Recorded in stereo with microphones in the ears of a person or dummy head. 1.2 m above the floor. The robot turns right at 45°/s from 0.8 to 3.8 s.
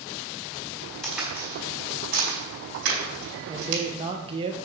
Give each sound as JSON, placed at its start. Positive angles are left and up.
{"t": 1.0, "sound": "a crack", "side_deg": 0, "distance_m": 4.5}
{"t": 3.5, "sound": "a man speaking", "side_deg": -15, "distance_m": 1.1}